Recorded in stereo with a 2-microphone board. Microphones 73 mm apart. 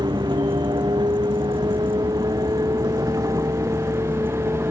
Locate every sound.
0.0 s a vehicle: 80° right; by 4.7 s 35° right (ahead or behind)